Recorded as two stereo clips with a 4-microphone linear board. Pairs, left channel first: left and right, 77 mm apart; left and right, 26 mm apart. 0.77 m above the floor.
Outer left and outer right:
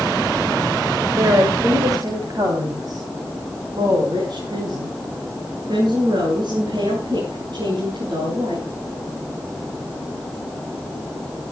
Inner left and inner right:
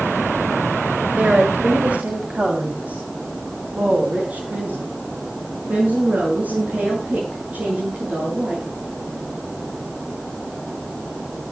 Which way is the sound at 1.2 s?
50° right (ahead or behind).